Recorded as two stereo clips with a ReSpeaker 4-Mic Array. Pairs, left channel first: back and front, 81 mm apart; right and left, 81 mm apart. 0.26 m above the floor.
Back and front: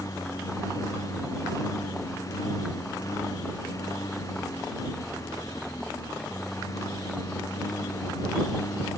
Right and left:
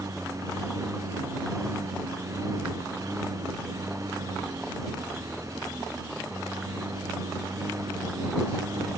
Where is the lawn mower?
135° left.